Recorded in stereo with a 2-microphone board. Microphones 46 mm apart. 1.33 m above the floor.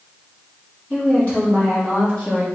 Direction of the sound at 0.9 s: 30° left (ahead or behind).